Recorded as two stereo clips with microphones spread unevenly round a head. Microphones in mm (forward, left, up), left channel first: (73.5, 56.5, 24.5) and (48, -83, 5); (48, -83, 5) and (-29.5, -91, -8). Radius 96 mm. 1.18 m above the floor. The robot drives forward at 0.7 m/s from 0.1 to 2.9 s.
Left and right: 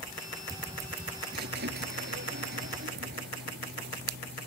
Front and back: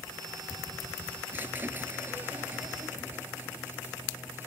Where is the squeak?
105° right; by 4.5 s 110° right.